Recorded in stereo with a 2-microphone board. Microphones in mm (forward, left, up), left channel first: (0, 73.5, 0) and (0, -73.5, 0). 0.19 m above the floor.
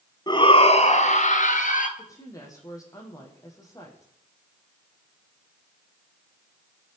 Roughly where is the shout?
Left.